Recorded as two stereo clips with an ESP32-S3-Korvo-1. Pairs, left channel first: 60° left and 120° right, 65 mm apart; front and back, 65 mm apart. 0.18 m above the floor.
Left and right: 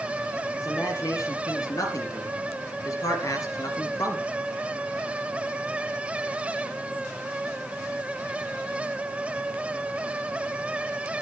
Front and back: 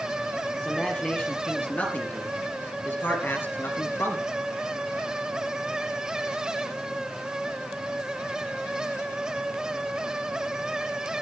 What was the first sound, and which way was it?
A man speaking, 70° left.